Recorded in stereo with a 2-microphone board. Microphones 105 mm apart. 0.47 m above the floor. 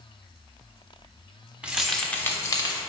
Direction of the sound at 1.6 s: 15° right (ahead or behind).